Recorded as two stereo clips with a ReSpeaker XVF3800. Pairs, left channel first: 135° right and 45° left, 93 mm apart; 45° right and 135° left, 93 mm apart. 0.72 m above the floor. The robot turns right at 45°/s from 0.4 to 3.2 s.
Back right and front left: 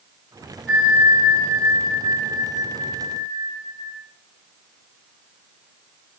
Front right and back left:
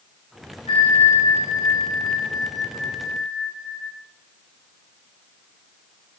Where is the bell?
60° right, 6.5 m; by 3.9 s 50° left, 6.5 m.